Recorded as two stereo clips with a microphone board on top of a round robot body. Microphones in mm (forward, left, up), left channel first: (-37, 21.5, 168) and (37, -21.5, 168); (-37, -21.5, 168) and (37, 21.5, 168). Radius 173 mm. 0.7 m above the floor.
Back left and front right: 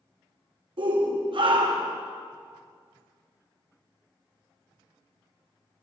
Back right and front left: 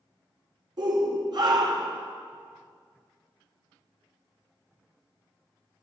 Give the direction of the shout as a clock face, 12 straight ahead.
12 o'clock.